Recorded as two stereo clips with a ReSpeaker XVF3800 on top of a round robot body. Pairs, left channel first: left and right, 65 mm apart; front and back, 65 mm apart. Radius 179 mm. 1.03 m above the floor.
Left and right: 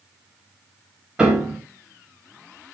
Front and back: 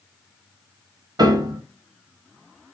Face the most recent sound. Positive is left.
turn(degrees=-170)